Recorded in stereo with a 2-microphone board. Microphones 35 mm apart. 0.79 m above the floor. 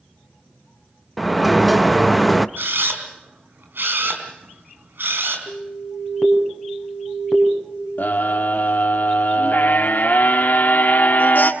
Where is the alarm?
15° left (ahead or behind), 5 m.